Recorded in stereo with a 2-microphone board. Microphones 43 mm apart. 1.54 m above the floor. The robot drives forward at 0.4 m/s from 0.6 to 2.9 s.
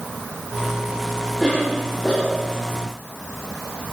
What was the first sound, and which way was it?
A cough, 15° left (ahead or behind).